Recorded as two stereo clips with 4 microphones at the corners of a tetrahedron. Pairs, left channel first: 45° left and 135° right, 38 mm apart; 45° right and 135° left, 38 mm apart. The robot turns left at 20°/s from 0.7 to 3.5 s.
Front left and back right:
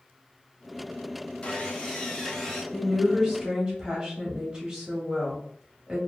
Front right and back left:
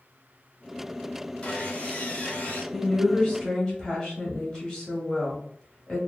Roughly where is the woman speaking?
Right.